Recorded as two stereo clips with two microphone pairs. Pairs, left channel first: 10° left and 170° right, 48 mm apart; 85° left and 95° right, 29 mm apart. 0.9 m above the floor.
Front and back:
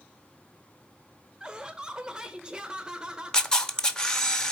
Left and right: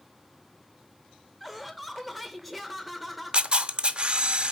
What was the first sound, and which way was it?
Laughter, 155° left.